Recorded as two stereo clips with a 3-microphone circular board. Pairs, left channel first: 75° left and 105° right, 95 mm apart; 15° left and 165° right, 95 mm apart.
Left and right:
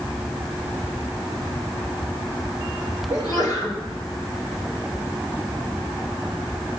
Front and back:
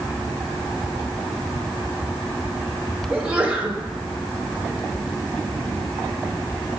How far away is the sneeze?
About 3 m.